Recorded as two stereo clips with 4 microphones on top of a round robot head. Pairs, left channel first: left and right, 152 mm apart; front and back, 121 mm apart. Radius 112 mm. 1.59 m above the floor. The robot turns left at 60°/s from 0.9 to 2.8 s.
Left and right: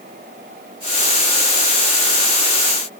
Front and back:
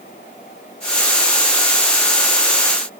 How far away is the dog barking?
I don't hear a dog barking.